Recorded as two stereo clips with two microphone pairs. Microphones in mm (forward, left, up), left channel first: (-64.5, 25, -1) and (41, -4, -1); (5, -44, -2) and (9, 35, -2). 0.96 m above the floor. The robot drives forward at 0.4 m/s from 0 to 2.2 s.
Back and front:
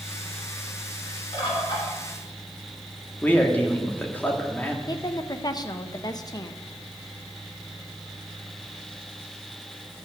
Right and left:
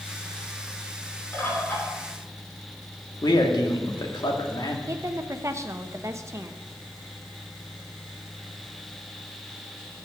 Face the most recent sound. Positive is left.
turn(degrees=125)